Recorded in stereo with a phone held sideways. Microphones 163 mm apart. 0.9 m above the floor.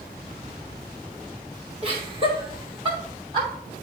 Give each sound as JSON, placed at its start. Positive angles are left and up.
{"t": 1.8, "sound": "laughter", "side_deg": -35, "distance_m": 3.5}